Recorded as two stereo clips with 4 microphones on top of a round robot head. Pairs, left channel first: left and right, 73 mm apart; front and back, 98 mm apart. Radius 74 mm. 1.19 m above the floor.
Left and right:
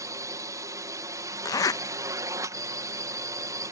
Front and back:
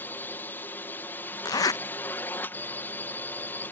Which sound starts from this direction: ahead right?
A drone, at 0.0 s.